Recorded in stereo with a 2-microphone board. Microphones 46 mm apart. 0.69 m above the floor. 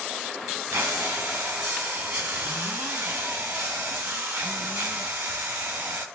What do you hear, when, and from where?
0.7 s breathing: 55° right (ahead or behind), 2 m